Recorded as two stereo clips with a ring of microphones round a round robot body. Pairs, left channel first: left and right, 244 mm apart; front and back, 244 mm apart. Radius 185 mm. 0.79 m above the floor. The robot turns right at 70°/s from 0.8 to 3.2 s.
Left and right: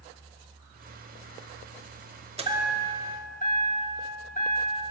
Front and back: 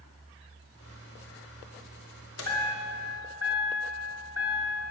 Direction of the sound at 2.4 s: 25° right.